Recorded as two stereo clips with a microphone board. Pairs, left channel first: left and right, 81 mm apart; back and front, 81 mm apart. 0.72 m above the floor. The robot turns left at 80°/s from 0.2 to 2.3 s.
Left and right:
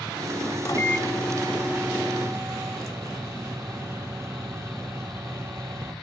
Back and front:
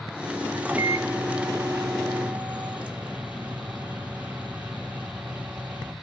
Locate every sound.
0.7 s a microwave: 65° left, 1.1 m; by 5.9 s 65° right, 1.1 m